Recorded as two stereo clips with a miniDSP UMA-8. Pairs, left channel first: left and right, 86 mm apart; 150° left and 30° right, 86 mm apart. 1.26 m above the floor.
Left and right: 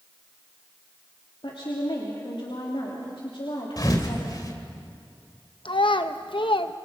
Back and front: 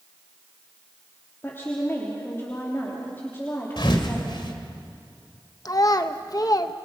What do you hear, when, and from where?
1.4 s a woman speaking: 90° left, 3 m
3.8 s a thud: 130° left, 2 m
5.7 s a child speaking: 105° left, 1.0 m